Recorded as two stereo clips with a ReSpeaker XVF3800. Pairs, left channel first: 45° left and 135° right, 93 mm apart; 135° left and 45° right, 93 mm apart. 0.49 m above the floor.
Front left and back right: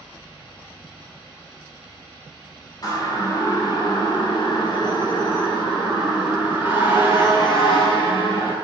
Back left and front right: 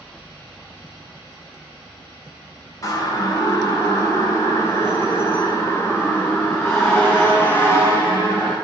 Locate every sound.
2.8 s a siren: 90° left, 3.5 m; by 8.5 s 70° left, 7 m